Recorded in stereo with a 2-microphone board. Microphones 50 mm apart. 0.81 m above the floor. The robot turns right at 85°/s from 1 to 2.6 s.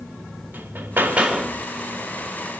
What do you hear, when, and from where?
0.5 s hammering: 40° right, 1.8 m; by 1.6 s 5° left, 1.8 m